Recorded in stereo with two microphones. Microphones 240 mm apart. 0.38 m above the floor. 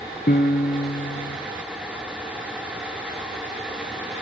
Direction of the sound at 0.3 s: 45° left (ahead or behind).